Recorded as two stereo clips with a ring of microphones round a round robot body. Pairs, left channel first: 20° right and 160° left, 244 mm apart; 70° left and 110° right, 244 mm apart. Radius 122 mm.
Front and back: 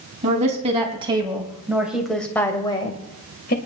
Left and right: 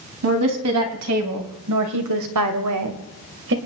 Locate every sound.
0.2 s a woman speaking: 140° right, 4 m; by 3.6 s 70° right, 2.5 m